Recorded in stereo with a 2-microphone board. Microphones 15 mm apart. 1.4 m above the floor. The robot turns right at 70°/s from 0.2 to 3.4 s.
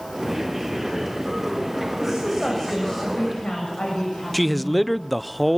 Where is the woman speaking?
35° right, 7 m; by 4.9 s 65° left, 7 m.